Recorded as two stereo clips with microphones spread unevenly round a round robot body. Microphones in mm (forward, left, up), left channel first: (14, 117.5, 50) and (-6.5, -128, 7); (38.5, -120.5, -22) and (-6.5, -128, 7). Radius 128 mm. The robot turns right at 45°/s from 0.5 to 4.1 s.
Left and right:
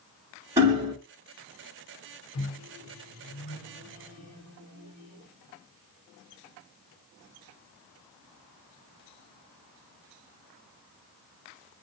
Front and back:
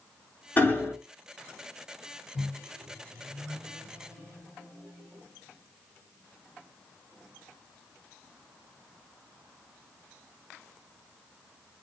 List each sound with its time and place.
0.6 s hammering: 20° right, 1.7 m; by 0.9 s 5° right, 1.7 m
2.3 s a microwave: 55° left, 1.8 m; by 5.2 s 135° left, 1.8 m